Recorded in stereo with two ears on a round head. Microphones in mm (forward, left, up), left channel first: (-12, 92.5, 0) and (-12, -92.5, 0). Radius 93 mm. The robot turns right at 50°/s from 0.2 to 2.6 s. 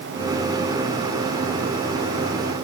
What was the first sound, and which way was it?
Only background noise.